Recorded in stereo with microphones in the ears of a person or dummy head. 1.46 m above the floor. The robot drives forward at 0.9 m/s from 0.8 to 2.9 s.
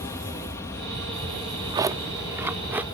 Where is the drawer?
30° right (ahead or behind); by 2.8 s 15° right (ahead or behind).